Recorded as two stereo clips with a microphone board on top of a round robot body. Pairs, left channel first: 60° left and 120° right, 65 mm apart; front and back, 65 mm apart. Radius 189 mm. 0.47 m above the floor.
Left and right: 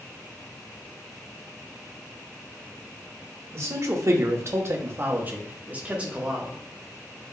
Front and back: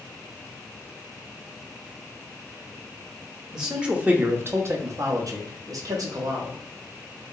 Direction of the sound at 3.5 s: 100° right.